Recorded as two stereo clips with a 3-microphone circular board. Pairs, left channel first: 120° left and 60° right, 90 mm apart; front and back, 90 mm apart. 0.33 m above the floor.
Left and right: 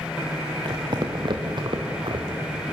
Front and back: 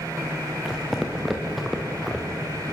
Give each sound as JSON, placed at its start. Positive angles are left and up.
{"t": 0.7, "sound": "footsteps", "azimuth_deg": -95, "distance_m": 3.0}